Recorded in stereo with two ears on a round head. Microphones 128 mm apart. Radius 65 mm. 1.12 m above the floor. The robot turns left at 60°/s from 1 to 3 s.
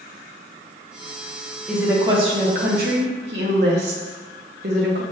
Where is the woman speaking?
5° right, 1.0 m; by 5.0 s 85° right, 1.0 m.